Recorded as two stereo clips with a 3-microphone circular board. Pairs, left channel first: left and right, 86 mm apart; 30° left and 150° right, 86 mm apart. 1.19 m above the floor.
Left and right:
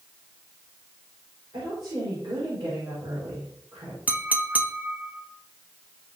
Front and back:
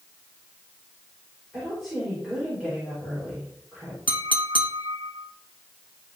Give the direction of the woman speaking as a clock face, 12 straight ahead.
2 o'clock.